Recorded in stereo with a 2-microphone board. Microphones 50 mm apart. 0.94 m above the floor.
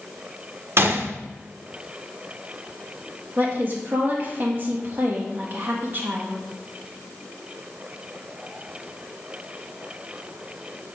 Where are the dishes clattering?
No dishes clattering in this recording.